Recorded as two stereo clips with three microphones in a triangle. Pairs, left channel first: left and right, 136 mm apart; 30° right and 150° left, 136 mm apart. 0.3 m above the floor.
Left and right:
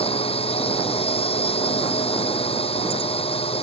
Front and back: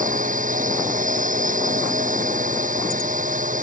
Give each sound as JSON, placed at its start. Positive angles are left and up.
{"t": 0.0, "sound": "a drone", "azimuth_deg": 135}